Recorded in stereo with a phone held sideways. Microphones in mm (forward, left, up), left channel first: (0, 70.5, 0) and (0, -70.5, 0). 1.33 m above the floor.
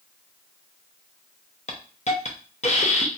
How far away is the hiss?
About 0.6 m.